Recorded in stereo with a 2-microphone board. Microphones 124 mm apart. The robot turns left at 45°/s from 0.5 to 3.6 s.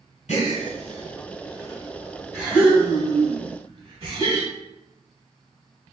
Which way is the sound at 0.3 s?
75° left (ahead or behind).